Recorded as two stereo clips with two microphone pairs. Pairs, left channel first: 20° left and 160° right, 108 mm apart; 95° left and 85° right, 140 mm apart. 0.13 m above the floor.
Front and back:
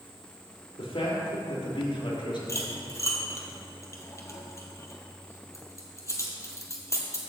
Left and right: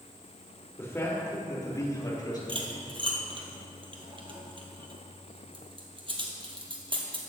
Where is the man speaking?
25° left, 4 m; by 2.4 s 40° left, 3.5 m.